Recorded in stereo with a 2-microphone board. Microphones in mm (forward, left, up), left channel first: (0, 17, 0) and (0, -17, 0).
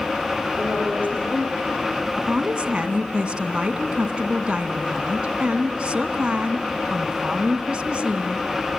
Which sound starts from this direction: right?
A woman speaking, at 2.2 s.